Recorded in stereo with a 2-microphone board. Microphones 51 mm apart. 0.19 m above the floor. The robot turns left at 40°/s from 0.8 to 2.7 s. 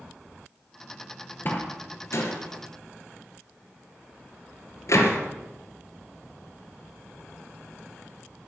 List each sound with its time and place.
1.4 s a door slam: 40° left (ahead or behind), 2.5 m; by 5.2 s 70° left (ahead or behind), 2.5 m